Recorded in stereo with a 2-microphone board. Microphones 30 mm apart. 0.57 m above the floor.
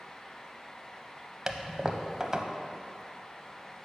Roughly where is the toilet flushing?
Right.